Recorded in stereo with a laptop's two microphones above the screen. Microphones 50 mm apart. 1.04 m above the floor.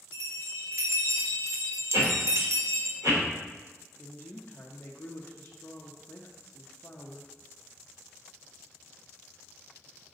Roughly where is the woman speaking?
Left.